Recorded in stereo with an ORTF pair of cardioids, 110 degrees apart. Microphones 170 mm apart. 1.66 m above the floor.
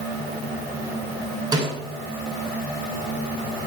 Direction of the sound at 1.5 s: 25° right.